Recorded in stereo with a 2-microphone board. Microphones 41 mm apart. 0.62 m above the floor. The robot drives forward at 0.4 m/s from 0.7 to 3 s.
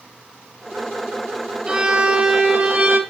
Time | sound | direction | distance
1.7 | a violin | 25° right (ahead or behind) | 1.4 m